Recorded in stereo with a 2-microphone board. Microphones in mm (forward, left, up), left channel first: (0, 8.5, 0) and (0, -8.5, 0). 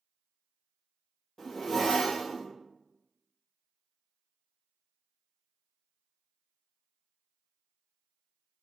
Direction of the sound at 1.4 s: 40° left (ahead or behind).